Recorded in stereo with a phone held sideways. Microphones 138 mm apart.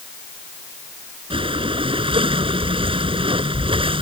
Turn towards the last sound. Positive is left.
turn(degrees=-40)  # may be behind; listen again after turning